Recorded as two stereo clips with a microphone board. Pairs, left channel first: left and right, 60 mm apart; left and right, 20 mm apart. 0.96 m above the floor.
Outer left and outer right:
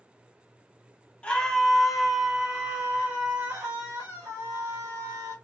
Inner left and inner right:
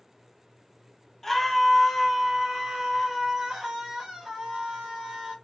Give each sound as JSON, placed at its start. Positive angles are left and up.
{"t": 1.2, "sound": "a scream", "side_deg": 20, "distance_m": 1.1}